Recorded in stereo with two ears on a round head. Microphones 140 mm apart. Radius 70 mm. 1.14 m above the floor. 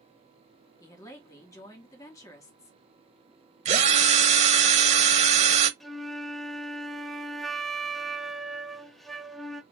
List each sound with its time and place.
0.8 s a woman speaking: 20° left (ahead or behind), 2.0 m
3.6 s a drill: 45° right (ahead or behind), 0.8 m
5.8 s a flute: centre (ahead or behind), 0.7 m